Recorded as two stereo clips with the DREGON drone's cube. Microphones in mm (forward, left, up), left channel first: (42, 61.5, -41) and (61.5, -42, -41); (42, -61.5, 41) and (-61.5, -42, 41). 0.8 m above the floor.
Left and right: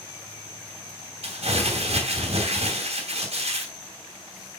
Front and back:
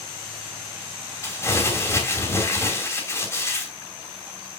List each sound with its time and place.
1.2 s crumpling: 75° right, 2.5 m